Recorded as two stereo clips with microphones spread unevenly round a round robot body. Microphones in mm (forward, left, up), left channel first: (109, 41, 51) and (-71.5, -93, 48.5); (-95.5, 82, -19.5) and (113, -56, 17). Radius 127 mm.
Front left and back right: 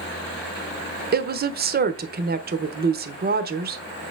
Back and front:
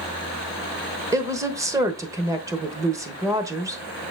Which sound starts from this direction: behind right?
A woman speaking, at 1.1 s.